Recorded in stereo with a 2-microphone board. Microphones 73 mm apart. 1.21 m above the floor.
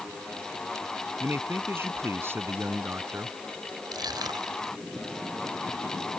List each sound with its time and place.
1.2 s a man speaking: 30° right (ahead or behind)
3.9 s crushing: 70° right (ahead or behind)